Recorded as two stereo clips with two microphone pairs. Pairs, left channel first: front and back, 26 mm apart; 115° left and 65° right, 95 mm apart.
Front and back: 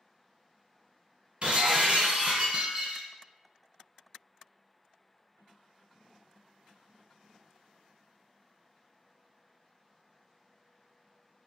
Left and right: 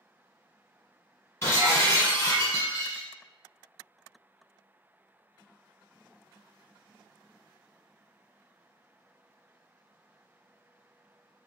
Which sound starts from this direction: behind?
Breaking glass, at 1.4 s.